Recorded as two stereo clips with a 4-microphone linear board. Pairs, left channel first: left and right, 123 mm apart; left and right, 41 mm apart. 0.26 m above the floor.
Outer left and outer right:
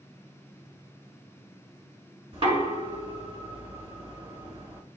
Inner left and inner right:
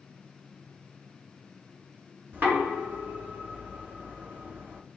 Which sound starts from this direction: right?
Knocking, at 2.3 s.